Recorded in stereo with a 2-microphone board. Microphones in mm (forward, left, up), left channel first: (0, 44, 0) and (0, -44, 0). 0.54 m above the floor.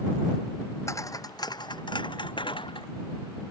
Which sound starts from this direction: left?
Footsteps, at 0.9 s.